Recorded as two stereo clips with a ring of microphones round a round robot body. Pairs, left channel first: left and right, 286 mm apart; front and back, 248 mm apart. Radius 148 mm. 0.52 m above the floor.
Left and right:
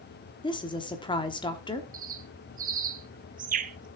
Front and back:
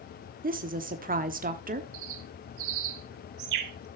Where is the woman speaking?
155° left, 1.1 m.